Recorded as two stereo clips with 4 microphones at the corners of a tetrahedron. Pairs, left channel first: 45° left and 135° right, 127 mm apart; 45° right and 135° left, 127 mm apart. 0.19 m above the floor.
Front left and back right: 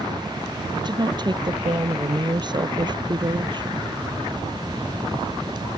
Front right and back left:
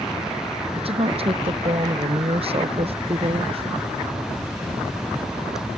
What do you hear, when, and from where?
0.8 s a woman speaking: 175° left